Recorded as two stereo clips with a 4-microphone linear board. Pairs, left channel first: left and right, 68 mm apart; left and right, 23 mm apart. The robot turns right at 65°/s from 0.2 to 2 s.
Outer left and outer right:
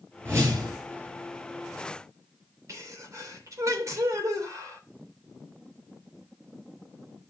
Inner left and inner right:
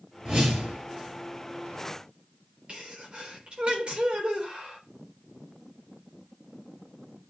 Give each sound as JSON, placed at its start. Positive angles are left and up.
{"t": 0.2, "sound": "a whoosh", "azimuth_deg": -150, "distance_m": 6.0}
{"t": 2.7, "sound": "a sneeze", "side_deg": -50, "distance_m": 3.0}